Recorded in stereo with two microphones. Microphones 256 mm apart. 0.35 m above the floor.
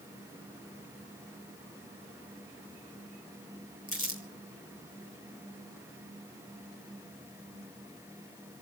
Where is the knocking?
I don't hear knocking.